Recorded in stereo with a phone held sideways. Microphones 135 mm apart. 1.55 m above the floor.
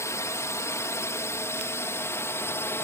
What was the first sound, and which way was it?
A drone, 20° left (ahead or behind).